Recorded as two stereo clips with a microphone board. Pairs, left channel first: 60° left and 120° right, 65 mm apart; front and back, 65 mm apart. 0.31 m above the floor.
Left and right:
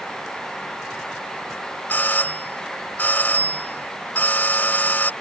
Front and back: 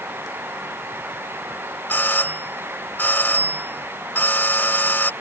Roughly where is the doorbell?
Ahead left.